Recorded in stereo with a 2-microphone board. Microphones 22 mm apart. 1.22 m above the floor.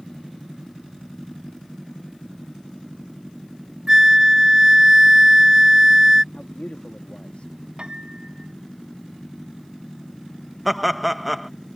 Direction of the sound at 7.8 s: 45° right (ahead or behind).